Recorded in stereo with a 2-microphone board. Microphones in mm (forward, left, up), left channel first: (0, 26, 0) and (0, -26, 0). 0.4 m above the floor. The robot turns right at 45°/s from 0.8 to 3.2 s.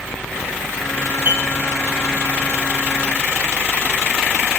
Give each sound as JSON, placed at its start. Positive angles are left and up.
{"t": 1.2, "sound": "dishes clattering", "side_deg": -35, "distance_m": 4.0}